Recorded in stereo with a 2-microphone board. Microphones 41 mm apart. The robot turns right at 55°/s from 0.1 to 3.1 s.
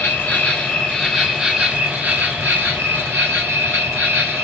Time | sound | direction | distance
0.0 | an insect | 125° left | 1.4 m